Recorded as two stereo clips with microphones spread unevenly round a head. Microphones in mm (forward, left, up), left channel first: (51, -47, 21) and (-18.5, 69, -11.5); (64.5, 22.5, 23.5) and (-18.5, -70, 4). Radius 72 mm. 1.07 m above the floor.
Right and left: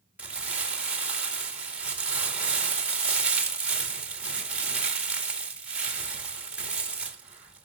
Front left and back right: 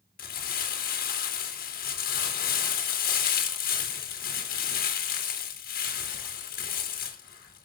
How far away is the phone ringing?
I don't hear a phone ringing.